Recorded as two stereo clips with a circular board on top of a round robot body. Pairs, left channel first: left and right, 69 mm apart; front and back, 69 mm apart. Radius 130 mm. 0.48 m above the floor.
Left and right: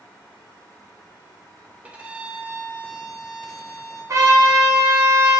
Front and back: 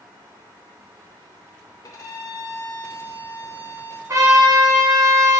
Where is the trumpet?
135° right, 2.5 m.